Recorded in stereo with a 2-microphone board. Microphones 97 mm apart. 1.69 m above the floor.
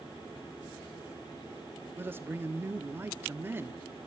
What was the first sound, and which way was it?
A man speaking, 20° right (ahead or behind).